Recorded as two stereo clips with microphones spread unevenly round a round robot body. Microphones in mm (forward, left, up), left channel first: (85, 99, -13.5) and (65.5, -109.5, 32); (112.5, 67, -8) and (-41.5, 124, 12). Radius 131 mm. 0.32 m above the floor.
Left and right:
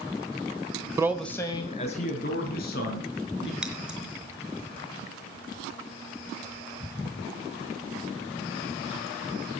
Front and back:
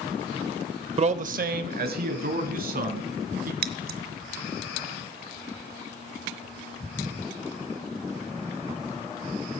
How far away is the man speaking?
About 0.9 m.